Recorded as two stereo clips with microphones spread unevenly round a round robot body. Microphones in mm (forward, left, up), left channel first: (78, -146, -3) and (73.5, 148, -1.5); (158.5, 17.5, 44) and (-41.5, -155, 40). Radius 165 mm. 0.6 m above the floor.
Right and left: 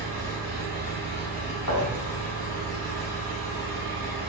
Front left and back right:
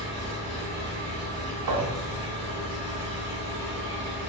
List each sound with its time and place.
0.0 s an engine running: 145° left, 1.3 m
1.7 s a thud: 125° right, 0.8 m